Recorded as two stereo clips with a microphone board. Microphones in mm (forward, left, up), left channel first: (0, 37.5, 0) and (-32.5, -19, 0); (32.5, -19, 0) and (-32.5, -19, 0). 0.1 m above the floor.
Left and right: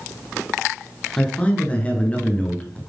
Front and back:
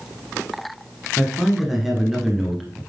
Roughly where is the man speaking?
Left.